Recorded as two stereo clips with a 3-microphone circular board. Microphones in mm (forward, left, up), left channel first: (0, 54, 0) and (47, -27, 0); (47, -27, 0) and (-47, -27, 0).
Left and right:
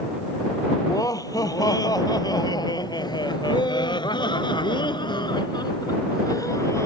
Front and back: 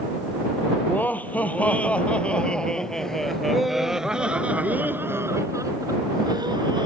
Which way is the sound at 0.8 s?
70° left.